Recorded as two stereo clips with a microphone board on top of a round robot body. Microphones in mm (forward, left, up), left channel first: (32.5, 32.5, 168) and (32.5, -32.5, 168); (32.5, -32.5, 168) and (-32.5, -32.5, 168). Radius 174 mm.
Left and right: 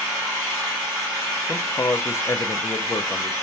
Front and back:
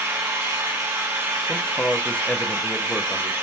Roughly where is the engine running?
Behind right.